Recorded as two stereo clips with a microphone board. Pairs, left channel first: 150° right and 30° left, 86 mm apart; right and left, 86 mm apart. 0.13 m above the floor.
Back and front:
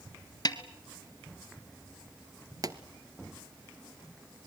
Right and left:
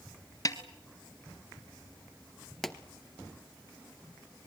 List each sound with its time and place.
0.5 s a snare drum: 125° right, 1.5 m
2.6 s a pop: 5° right, 1.0 m